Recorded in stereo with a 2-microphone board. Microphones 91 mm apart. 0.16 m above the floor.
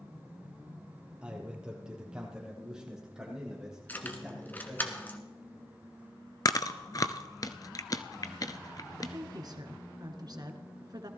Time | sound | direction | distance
1.2 | a man speaking | 15° right (ahead or behind) | 4 m
3.9 | keys jangling | 20° left (ahead or behind) | 1.4 m
6.5 | chewing | 45° left (ahead or behind) | 0.7 m
9.0 | a woman speaking | 50° right (ahead or behind) | 1.6 m